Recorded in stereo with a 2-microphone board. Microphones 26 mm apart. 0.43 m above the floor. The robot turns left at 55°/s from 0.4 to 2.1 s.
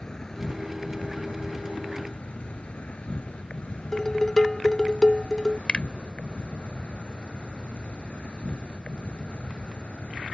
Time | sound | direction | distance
0.0 | an insect | 150° left | ?
3.9 | dishes clattering | 15° left (ahead or behind) | ?
5.7 | a finger snap | 45° left (ahead or behind) | ?